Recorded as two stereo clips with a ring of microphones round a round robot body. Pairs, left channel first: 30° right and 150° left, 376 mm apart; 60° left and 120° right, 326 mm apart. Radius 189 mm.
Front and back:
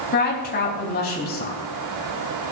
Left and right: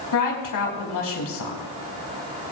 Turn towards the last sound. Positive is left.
turn(degrees=35)